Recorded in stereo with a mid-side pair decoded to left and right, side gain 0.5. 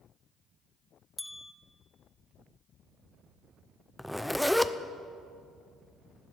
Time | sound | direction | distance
1.2 | a bell | 15° left | 0.7 m
4.0 | a zipper | straight ahead | 0.6 m